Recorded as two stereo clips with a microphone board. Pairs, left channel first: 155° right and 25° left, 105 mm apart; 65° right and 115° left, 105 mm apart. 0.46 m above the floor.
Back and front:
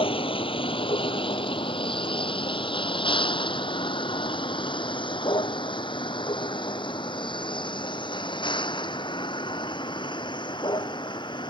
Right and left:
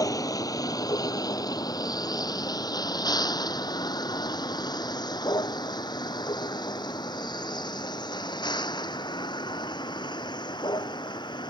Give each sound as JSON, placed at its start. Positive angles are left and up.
{"t": 0.0, "sound": "a vehicle", "azimuth_deg": -125}